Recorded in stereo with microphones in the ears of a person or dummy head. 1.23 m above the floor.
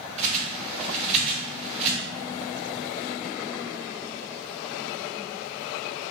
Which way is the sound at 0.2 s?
35° right (ahead or behind).